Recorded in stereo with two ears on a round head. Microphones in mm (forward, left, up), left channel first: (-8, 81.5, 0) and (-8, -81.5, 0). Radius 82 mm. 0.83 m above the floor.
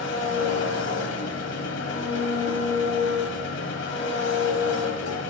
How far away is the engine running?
About 1.3 m.